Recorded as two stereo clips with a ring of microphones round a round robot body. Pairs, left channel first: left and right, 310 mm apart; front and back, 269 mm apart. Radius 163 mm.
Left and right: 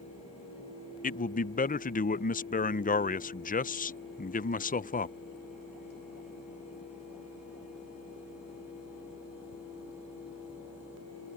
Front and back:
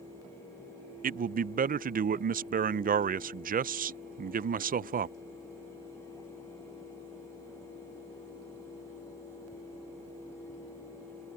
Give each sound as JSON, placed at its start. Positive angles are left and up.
{"t": 1.0, "sound": "a man speaking", "azimuth_deg": 140}